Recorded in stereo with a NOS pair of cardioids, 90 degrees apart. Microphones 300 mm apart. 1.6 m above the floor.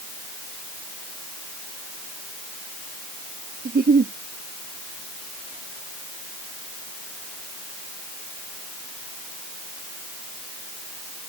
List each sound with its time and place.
3.6 s a giggle: 30° right